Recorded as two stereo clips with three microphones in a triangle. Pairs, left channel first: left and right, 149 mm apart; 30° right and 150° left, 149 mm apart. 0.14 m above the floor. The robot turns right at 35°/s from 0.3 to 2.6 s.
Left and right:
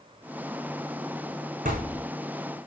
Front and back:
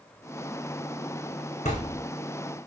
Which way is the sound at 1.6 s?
65° right.